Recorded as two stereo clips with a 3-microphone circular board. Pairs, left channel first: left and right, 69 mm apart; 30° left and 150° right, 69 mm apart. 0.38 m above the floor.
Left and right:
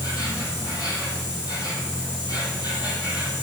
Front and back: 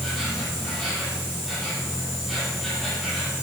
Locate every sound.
0.0 s an insect: 120° left, 7.5 m